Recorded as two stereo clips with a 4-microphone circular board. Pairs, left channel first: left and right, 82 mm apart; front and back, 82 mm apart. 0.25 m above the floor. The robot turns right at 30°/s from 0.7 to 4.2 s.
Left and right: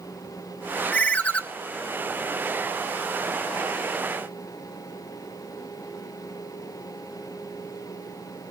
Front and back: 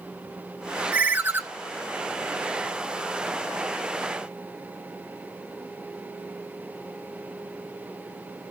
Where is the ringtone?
125° left, 0.5 m; by 1.4 s 140° left, 0.5 m.